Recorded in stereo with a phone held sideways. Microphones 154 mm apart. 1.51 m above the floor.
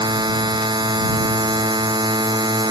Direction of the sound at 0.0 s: 30° right (ahead or behind).